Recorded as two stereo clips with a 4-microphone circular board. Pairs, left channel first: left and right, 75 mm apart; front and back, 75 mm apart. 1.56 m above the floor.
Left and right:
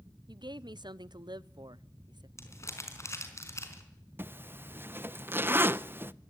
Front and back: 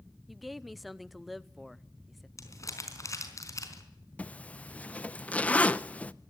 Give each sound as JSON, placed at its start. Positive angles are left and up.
{"t": 0.3, "sound": "a woman speaking", "azimuth_deg": -90, "distance_m": 0.7}
{"t": 2.4, "sound": "crumpling", "azimuth_deg": 40, "distance_m": 4.5}
{"t": 4.2, "sound": "a zipper", "azimuth_deg": -60, "distance_m": 0.6}